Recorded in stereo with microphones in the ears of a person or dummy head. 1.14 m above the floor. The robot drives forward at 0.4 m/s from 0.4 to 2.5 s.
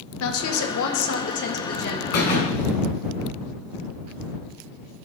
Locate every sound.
0.2 s a woman speaking: 80° left, 1.0 m; by 2.0 s 50° left (ahead or behind), 1.3 m
2.1 s a thud: 60° left (ahead or behind), 2.5 m; by 2.8 s 55° left (ahead or behind), 2.5 m